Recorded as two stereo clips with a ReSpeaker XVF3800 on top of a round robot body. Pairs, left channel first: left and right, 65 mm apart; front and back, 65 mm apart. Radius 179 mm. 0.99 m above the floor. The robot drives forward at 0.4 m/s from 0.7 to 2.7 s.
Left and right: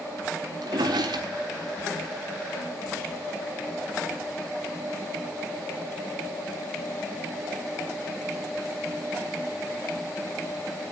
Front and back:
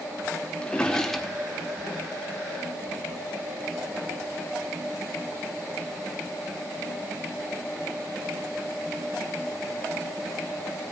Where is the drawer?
75° right, 0.8 m; by 1.9 s 110° right, 0.8 m.